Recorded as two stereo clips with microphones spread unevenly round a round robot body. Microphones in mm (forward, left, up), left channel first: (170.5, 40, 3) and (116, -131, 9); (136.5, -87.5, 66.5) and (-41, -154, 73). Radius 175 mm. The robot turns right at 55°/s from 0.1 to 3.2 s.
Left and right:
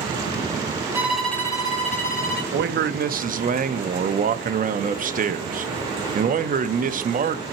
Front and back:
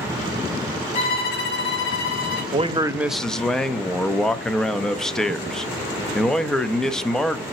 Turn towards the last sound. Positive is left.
turn(degrees=-65)